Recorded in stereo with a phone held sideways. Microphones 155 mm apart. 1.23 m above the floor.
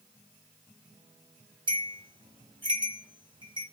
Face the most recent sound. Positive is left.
turn(degrees=-30)  # may be behind; listen again after turning